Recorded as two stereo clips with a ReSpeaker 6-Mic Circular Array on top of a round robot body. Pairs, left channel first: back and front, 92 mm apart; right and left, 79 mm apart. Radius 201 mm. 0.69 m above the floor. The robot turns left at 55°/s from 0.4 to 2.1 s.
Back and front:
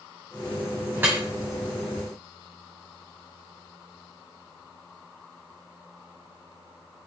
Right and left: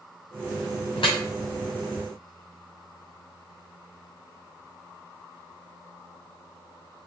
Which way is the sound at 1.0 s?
65° right.